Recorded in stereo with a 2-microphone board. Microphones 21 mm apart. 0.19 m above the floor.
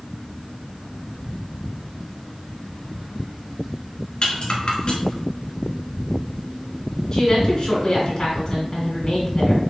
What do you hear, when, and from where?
4.2 s a rattle: 50° left (ahead or behind), 1.6 m
7.1 s a woman speaking: 35° left (ahead or behind), 2.0 m